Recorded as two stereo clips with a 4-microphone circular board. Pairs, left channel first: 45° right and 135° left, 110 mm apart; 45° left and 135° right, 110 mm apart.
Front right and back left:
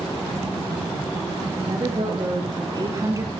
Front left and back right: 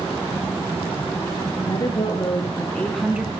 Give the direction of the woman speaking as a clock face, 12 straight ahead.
9 o'clock.